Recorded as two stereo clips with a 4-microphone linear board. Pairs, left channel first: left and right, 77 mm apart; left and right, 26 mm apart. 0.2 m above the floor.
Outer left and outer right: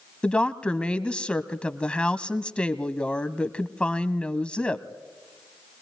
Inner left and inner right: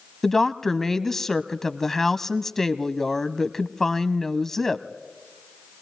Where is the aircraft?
No aircraft in this recording.